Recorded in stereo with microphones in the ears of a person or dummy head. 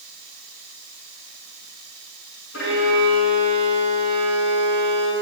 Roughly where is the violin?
Left.